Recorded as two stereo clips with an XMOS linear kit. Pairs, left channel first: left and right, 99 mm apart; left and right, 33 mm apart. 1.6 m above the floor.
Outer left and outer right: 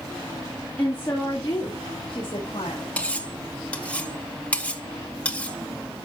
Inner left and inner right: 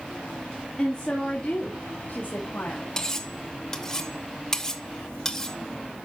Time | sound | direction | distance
0.8 | a woman speaking | 15° left (ahead or behind) | 2.5 m
3.0 | cutlery clinking | 15° left (ahead or behind) | 1.0 m